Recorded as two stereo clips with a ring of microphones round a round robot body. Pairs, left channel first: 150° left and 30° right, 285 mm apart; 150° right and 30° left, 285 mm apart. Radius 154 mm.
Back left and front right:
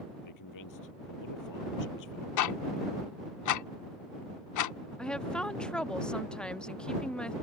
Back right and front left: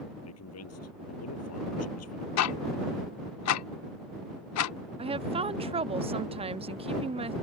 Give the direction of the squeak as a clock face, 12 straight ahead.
I don't hear a squeak.